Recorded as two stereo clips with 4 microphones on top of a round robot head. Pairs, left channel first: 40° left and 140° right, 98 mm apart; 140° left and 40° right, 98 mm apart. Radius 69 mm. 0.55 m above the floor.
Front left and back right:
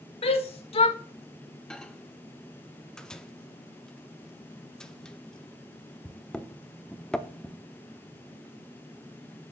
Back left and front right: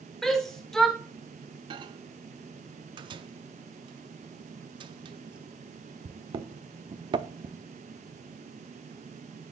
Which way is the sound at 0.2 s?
55° left.